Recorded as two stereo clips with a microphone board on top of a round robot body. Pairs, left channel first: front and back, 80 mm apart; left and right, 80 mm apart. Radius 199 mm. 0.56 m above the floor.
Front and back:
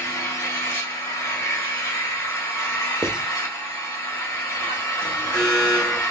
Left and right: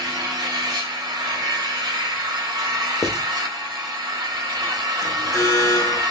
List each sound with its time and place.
0.0 s an engine running: 50° right, 1.3 m
3.0 s writing: 110° left, 0.9 m
5.0 s an alarm: 70° left, 2.5 m